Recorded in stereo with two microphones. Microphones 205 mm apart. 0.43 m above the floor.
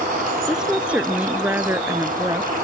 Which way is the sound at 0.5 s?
5° right (ahead or behind).